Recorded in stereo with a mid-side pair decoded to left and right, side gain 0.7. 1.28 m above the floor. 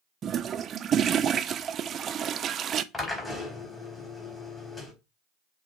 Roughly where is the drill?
Ahead.